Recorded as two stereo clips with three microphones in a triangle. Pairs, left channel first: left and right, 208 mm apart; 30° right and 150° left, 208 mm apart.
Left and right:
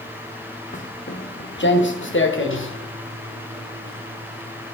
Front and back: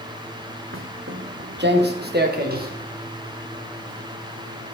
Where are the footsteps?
140° left, 0.9 m; by 4.8 s 100° left, 5 m.